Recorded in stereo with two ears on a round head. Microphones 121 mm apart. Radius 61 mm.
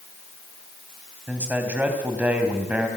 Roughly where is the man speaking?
Centre.